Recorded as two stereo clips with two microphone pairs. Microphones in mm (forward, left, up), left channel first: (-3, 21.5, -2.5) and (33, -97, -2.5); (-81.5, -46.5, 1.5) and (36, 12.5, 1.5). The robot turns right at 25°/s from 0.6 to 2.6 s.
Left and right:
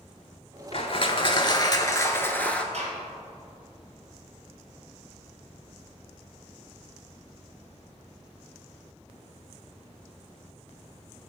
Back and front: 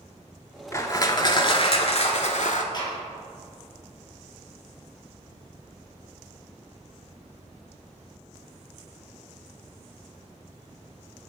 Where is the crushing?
145° left, 0.6 m; by 2.6 s 170° right, 0.6 m.